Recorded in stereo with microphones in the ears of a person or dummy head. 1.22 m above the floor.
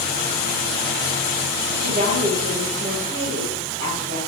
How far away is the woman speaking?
About 3 m.